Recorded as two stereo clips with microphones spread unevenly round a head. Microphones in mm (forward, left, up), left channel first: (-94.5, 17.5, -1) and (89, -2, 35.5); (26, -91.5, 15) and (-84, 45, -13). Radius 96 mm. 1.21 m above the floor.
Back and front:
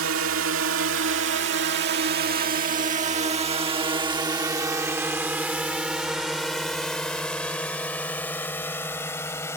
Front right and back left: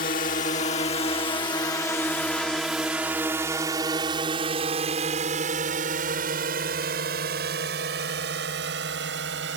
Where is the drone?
Straight ahead; by 9.6 s 95° left.